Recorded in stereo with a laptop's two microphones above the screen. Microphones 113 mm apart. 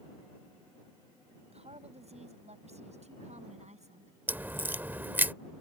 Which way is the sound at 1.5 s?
70° right (ahead or behind).